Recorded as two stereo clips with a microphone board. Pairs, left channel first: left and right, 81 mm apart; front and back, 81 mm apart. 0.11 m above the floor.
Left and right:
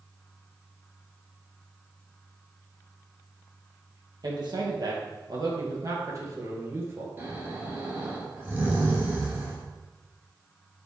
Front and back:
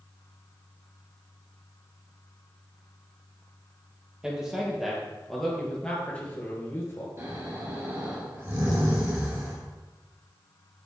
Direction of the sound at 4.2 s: 100° right.